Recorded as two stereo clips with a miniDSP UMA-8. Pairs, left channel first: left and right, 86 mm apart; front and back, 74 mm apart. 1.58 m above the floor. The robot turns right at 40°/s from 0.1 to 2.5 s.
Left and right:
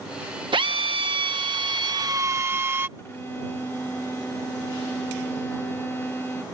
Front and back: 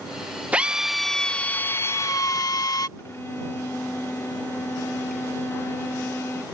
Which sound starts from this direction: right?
A drill, at 0.5 s.